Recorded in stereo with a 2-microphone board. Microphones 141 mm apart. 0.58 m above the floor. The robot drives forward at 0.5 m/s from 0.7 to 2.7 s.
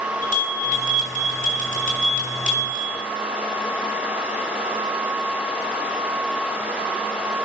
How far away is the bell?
About 5.5 m.